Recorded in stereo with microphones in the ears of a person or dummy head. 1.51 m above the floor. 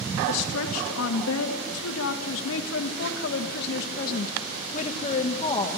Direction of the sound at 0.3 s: 85° left.